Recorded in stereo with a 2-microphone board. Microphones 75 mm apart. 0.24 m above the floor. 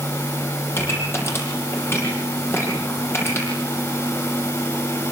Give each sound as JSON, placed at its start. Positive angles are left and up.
{"t": 0.7, "sound": "a pop", "side_deg": 30, "distance_m": 9.0}